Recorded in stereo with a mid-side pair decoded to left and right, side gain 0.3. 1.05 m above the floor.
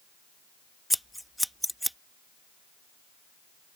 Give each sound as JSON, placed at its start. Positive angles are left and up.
{"t": 0.9, "sound": "scissors", "azimuth_deg": 0}